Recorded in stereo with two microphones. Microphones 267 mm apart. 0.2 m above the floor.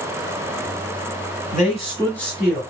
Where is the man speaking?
30° left (ahead or behind), 1.3 m; by 2.6 s 10° right (ahead or behind), 1.2 m.